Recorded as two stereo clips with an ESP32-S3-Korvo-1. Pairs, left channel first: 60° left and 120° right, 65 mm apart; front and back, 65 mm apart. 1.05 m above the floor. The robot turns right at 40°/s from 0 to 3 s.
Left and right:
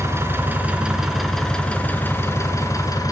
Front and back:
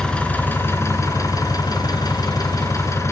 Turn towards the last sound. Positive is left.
turn(degrees=40)